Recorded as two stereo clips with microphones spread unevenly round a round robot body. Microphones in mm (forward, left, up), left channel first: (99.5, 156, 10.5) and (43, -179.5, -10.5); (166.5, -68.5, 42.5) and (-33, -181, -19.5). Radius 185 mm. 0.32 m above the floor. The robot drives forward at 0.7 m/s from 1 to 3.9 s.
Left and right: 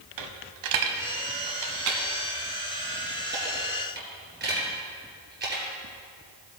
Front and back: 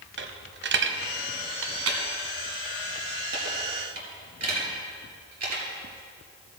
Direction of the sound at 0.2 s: 130° right.